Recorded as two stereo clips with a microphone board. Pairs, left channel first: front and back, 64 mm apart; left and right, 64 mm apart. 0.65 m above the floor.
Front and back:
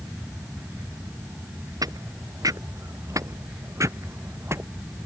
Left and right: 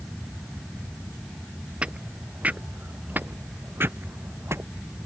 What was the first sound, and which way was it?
Footsteps, 160° right.